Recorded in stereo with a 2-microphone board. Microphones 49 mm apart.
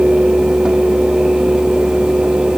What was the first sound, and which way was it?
Only background noise.